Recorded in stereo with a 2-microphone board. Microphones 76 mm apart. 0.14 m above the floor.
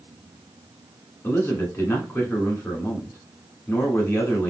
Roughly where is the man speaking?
Left.